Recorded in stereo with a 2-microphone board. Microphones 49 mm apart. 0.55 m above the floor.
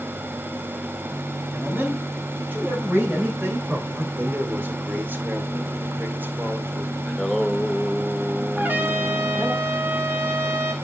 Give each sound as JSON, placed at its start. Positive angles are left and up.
{"t": 1.5, "sound": "a man speaking", "side_deg": -40, "distance_m": 4.0}
{"t": 4.2, "sound": "a man speaking", "side_deg": -40, "distance_m": 1.6}
{"t": 7.1, "sound": "singing", "side_deg": 5, "distance_m": 0.9}
{"t": 8.6, "sound": "a trumpet", "side_deg": -40, "distance_m": 1.6}